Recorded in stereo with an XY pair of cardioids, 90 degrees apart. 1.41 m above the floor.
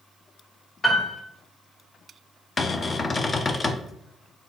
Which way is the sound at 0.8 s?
35° left.